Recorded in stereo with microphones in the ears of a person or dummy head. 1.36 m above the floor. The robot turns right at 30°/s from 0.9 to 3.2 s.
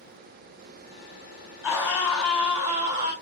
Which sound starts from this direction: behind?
A scream, at 1.6 s.